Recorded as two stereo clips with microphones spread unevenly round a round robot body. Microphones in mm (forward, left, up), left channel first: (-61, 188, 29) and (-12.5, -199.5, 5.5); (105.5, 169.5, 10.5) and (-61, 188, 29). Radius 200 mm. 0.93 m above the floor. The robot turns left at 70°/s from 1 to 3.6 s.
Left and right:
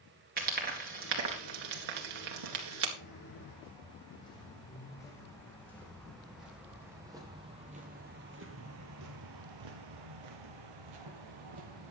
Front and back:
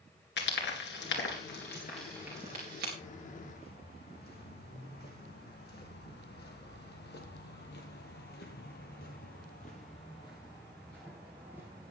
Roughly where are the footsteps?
Ahead left.